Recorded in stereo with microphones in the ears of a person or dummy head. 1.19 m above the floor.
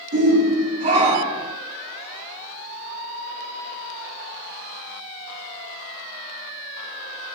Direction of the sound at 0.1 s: 55° right (ahead or behind).